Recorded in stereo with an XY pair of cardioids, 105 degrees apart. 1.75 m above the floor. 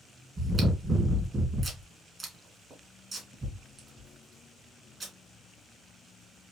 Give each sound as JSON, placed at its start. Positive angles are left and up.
{"t": 0.4, "sound": "chewing", "azimuth_deg": -30, "distance_m": 1.9}